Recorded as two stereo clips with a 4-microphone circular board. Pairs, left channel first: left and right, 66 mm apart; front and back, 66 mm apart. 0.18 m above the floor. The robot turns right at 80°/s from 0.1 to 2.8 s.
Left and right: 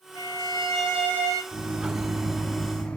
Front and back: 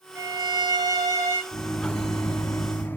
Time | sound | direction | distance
0.1 | a violin | 125° left | 5 m
1.5 | a microwave | 75° right | 0.9 m